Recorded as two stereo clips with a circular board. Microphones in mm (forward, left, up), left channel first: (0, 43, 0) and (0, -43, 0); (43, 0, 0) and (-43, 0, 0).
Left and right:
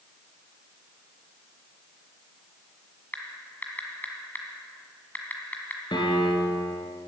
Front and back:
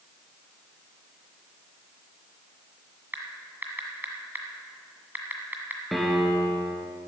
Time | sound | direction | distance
3.1 | typing on a keyboard | 135° left | 1.7 m
5.9 | a piano | 90° left | 1.8 m